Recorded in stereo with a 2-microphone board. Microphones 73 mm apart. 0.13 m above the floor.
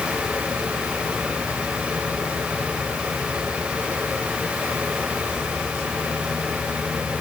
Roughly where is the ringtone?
I don't hear a ringtone.